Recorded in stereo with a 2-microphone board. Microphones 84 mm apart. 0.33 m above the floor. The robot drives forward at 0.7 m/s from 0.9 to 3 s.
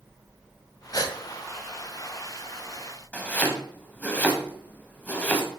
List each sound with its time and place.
0.9 s a gasp: 45° left (ahead or behind), 1.2 m
3.1 s chopping: 15° left (ahead or behind), 2 m